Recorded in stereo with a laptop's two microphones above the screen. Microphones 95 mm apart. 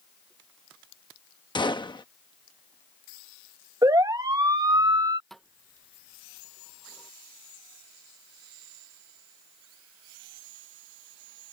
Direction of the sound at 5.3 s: 5° left (ahead or behind).